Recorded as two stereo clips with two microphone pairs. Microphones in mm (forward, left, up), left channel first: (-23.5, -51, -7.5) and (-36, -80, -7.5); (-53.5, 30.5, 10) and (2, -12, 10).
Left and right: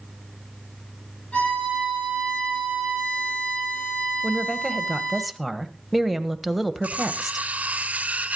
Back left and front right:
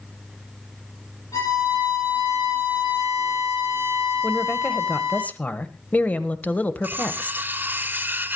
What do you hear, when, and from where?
1.3 s a violin: 110° left, 8.5 m
4.2 s a woman speaking: 165° left, 1.0 m
6.8 s cutlery clinking: 90° right, 1.2 m